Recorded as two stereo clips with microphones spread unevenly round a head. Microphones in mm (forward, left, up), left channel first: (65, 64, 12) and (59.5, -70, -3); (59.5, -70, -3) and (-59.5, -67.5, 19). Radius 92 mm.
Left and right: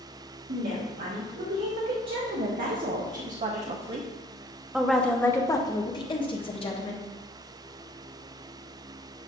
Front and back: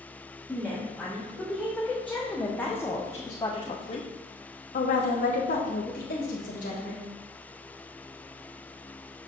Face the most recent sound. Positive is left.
turn(degrees=45)